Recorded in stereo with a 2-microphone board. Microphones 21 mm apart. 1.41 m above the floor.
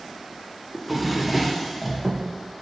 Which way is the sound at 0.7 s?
5° right (ahead or behind).